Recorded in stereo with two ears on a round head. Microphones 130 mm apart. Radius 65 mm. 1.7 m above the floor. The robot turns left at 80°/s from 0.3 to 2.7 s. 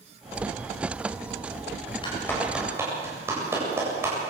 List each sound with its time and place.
2.0 s a clap: 35° left (ahead or behind), 8 m; by 4.2 s 15° right (ahead or behind), 8 m